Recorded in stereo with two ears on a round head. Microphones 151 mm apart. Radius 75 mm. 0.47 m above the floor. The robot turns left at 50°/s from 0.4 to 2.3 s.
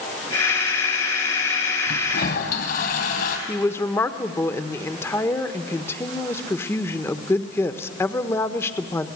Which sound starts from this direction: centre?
A woman speaking, at 3.5 s.